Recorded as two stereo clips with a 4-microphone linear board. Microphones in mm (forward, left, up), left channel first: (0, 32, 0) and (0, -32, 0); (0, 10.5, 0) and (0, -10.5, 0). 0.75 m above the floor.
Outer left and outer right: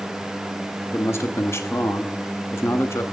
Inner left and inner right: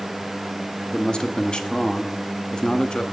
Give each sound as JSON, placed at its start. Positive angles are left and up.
{"t": 0.9, "sound": "a man speaking", "side_deg": 40, "distance_m": 1.1}